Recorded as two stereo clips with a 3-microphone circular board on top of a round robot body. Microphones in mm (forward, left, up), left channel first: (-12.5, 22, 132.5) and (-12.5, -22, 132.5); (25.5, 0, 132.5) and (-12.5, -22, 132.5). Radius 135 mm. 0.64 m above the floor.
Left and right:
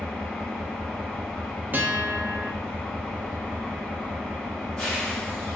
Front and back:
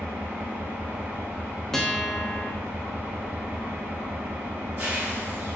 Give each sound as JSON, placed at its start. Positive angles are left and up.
{"t": 0.0, "sound": "an engine running", "azimuth_deg": 170, "distance_m": 1.8}
{"t": 1.7, "sound": "a guitar", "azimuth_deg": -50, "distance_m": 0.9}